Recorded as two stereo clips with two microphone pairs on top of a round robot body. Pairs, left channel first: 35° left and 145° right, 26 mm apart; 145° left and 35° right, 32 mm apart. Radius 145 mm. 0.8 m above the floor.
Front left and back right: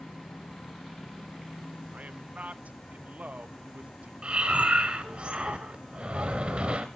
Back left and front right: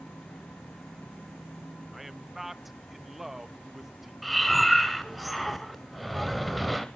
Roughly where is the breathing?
Right.